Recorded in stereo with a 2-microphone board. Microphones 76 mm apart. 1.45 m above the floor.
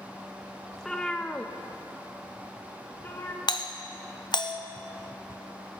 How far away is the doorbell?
About 0.8 m.